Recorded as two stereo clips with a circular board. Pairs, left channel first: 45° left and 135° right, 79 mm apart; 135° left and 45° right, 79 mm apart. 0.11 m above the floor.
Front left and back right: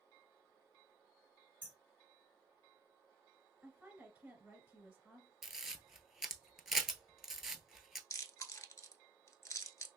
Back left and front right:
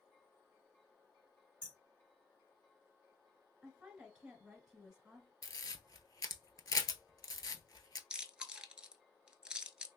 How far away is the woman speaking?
About 1.4 m.